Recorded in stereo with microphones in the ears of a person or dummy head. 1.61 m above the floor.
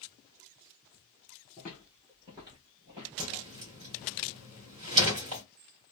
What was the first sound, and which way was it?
Footsteps, 5° left (ahead or behind).